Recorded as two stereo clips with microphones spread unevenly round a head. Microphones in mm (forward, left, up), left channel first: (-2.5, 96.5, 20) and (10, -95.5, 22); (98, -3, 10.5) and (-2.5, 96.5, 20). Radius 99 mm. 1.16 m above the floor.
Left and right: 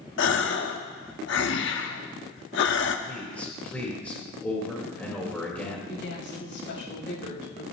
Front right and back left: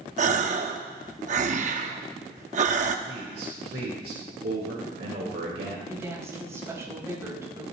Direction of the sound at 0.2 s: 115° left.